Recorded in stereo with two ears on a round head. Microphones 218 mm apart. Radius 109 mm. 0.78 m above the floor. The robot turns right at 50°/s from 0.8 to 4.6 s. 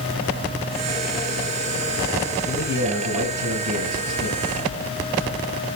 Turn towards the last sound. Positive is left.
turn(degrees=-40)